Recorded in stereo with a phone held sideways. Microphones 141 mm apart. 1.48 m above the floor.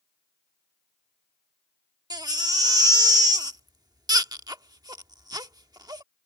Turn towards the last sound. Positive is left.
turn(degrees=-25)  # may be behind; listen again after turning